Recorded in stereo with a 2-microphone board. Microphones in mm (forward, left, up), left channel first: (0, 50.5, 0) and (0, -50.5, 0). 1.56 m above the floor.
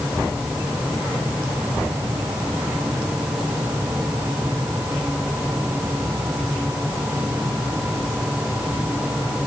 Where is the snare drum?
No snare drum in this recording.